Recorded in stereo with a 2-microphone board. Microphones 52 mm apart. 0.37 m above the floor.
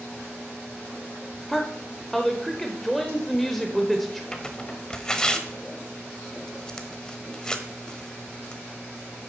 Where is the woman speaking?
5° left (ahead or behind), 0.9 m.